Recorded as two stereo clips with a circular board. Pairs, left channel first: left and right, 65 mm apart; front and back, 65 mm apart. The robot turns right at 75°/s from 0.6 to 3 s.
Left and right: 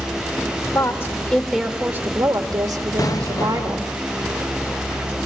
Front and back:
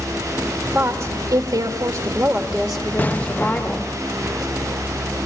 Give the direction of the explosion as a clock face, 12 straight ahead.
10 o'clock.